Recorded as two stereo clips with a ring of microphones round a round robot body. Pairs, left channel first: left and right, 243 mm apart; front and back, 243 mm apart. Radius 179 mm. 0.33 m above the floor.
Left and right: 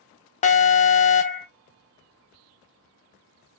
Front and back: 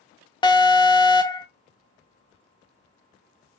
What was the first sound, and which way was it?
An alarm, 60° left.